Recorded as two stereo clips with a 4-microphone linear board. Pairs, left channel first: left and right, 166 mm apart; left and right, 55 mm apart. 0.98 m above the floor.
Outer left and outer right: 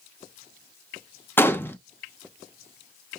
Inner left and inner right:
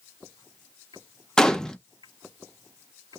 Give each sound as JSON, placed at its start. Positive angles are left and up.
{"t": 1.4, "sound": "a gunshot", "side_deg": 15, "distance_m": 0.6}